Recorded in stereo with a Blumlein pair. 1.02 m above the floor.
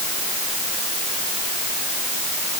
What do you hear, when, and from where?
Only background noise.